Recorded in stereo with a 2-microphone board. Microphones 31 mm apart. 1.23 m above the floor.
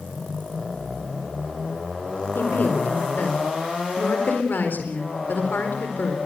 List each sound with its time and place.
2.4 s a woman speaking: 75° left (ahead or behind), 4 m